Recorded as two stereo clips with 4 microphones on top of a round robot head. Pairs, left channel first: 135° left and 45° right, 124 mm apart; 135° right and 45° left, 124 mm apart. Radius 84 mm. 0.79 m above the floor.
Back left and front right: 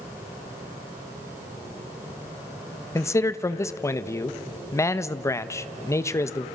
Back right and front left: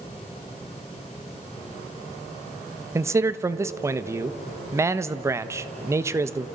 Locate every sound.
3.0 s a man speaking: 90° left, 1.0 m